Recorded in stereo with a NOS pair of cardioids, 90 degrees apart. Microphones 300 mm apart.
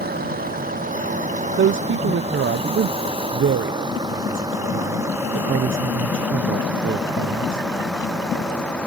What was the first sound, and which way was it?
A vehicle, 30° right.